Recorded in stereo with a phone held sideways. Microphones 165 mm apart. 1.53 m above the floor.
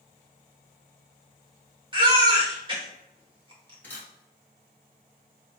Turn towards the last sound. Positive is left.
turn(degrees=10)  # may be behind; listen again after turning